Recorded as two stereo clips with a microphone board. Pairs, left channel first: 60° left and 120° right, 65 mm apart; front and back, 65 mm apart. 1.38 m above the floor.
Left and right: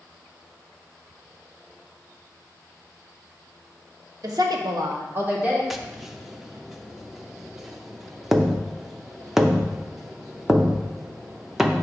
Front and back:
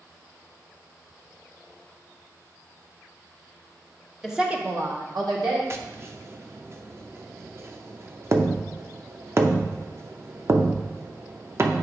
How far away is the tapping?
About 0.6 m.